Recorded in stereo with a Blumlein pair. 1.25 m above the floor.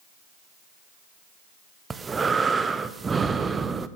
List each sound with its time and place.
1.9 s breathing: 15° right, 0.7 m